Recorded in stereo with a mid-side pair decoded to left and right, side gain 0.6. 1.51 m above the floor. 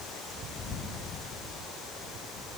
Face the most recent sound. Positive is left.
No sound to turn to.